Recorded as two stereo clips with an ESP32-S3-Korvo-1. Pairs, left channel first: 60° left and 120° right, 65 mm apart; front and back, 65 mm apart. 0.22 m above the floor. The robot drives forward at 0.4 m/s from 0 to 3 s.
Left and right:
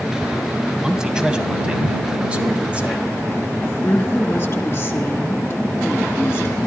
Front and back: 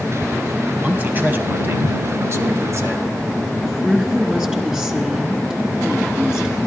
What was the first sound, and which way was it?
A man speaking, 170° left.